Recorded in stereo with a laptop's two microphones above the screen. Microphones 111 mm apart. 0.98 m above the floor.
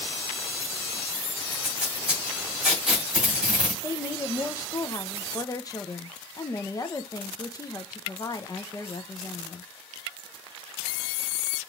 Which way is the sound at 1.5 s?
10° right (ahead or behind).